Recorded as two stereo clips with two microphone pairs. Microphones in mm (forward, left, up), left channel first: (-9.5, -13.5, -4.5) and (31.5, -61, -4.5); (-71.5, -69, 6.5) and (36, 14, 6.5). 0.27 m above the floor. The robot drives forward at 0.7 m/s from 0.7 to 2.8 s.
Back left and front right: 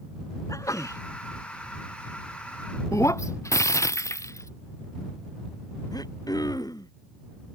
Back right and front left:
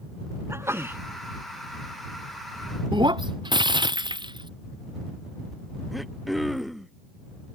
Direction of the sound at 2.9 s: 95° left.